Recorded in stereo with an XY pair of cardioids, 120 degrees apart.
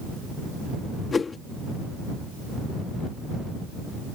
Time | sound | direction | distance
1.1 | a whoosh | 30° left | ?